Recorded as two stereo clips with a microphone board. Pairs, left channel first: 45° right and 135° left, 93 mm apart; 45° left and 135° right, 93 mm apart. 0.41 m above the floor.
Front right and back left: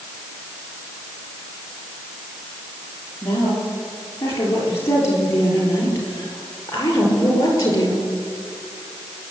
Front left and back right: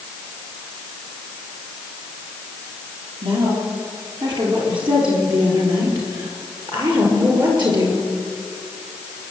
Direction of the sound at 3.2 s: 105° right.